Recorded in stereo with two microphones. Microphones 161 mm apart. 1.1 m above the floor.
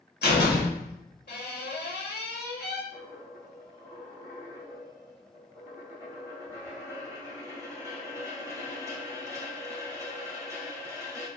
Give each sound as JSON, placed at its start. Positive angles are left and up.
{"t": 0.2, "sound": "a door slam", "side_deg": 90, "distance_m": 1.4}
{"t": 2.9, "sound": "a dropped coin", "side_deg": -20, "distance_m": 2.0}